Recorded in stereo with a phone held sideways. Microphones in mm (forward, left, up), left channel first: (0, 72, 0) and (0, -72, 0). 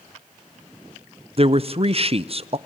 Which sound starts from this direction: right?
A man speaking, at 1.4 s.